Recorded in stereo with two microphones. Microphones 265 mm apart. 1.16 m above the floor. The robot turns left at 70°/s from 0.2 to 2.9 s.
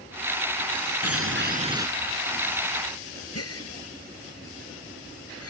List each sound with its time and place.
1.0 s a bird: 115° right; by 1.9 s 170° right
3.4 s a gasp: 65° left (ahead or behind)